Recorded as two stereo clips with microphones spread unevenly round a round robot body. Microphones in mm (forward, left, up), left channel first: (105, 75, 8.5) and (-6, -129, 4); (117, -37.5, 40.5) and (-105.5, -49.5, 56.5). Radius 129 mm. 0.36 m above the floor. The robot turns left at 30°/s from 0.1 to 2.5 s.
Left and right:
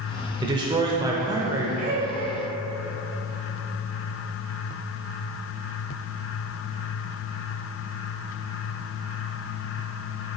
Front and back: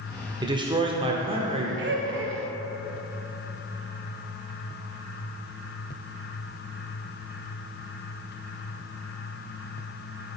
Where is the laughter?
160° right, 1.3 m; by 2.4 s straight behind, 1.3 m.